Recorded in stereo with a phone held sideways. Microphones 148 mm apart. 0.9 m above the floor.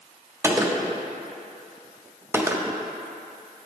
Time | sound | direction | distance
0.4 | a gunshot | 15° right (ahead or behind) | 0.5 m